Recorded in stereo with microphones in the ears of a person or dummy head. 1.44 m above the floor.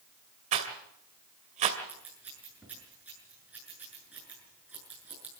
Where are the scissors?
5° right (ahead or behind), 7.5 m.